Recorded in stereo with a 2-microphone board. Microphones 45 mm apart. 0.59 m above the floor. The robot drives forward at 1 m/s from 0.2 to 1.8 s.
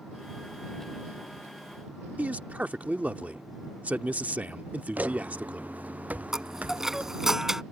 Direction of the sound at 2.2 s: 30° right (ahead or behind).